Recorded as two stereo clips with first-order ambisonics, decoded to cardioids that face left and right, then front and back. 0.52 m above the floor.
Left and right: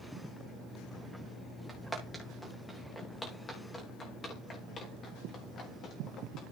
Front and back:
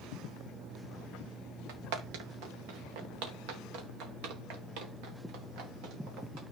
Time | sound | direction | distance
1.7 | footsteps | 175° right | 3 m